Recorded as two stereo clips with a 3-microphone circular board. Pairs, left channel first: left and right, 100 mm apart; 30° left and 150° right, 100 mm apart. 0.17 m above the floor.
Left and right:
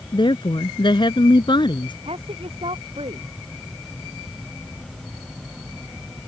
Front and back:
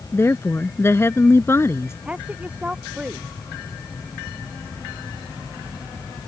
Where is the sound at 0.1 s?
85° left.